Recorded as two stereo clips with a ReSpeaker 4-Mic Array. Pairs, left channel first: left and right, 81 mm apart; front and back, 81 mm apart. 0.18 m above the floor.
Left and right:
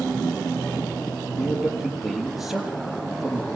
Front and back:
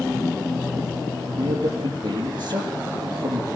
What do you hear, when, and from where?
1.4 s a man speaking: straight behind, 5 m